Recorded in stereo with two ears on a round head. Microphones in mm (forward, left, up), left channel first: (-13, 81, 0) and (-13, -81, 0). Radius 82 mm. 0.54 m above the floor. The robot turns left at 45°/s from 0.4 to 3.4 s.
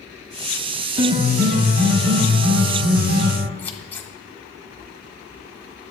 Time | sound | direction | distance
1.0 | a piano | 15° right | 1.3 m
3.6 | scissors | 10° left (ahead or behind) | 1.0 m